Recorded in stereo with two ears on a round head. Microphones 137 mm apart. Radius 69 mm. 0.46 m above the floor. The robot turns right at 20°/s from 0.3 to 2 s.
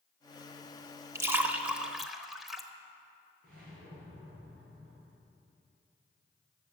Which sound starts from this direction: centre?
A splash, at 1.1 s.